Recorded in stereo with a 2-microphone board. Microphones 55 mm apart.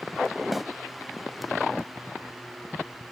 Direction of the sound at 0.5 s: Centre (ahead or behind).